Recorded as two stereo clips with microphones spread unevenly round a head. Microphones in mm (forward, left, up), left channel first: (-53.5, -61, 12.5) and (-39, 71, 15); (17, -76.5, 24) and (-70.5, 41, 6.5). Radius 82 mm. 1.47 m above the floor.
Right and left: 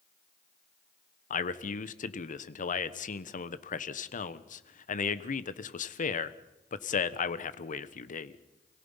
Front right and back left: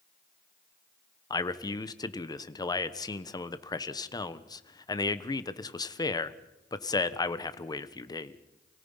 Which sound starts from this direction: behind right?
A man speaking, at 1.3 s.